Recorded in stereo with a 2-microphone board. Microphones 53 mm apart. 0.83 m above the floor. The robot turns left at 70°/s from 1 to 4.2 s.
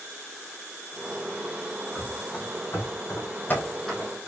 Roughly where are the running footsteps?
Centre.